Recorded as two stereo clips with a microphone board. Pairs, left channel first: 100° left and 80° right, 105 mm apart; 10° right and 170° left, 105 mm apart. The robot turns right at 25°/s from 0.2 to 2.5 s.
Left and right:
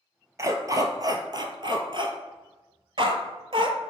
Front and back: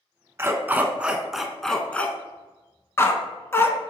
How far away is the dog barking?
About 0.5 m.